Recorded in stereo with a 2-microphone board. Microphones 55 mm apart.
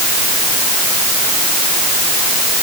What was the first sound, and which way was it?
Only background noise.